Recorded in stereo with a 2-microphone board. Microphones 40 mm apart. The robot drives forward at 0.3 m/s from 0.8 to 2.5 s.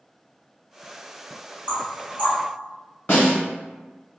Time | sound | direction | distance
1.7 | knocking | 40° left (ahead or behind) | 1.6 m
3.1 | a snare drum | 60° left (ahead or behind) | 1.9 m